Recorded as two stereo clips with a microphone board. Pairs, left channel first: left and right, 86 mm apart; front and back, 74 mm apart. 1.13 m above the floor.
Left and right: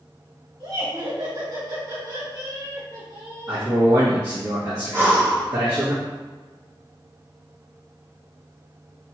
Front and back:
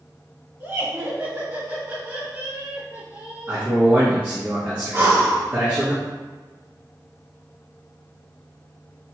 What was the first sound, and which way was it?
Laughter, 120° right.